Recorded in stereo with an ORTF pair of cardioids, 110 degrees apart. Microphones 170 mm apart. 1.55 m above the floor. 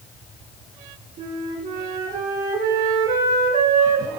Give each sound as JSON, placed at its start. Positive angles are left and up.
{"t": 1.2, "sound": "a flute", "azimuth_deg": -55, "distance_m": 3.5}